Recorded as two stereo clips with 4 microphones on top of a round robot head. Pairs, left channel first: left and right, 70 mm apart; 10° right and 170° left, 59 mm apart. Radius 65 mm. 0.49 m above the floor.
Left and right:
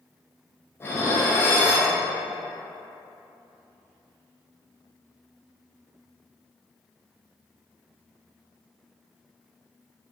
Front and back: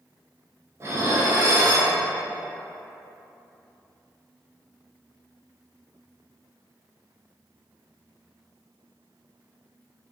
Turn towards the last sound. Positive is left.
turn(degrees=140)